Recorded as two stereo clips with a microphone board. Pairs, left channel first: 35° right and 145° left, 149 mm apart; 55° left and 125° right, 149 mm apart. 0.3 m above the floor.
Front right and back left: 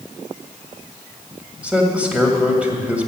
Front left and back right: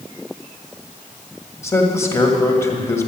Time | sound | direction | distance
1.6 | a man speaking | 80° left | 1.5 m